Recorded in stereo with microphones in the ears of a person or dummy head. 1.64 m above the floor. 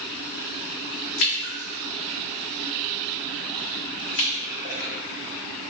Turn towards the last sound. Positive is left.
turn(degrees=65)  # may be behind; listen again after turning